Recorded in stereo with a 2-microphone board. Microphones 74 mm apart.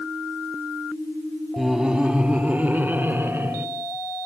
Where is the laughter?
5° right (ahead or behind), 1.3 m; by 3.7 s 40° right (ahead or behind), 2.5 m.